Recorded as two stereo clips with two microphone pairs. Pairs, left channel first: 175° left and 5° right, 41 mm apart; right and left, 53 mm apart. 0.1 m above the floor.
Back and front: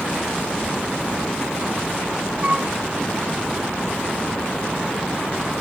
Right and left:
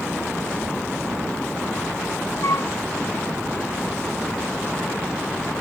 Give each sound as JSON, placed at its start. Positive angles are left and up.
{"t": 2.4, "sound": "a flute", "azimuth_deg": -65}